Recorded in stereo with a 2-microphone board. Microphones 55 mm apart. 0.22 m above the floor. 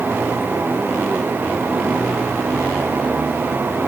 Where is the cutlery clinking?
No cutlery clinking in this recording.